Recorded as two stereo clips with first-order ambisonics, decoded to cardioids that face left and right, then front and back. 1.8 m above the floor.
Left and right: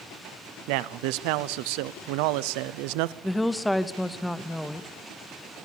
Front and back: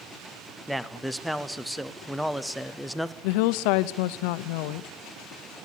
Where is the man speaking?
90° right, 0.7 m.